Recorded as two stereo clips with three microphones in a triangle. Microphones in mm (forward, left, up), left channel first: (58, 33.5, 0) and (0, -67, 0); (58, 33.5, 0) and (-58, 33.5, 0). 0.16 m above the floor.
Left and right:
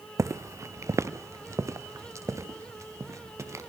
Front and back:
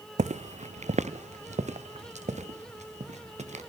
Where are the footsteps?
175° left, 0.5 m.